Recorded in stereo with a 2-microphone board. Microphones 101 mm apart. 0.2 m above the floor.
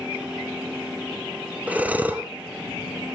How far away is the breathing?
About 1.8 m.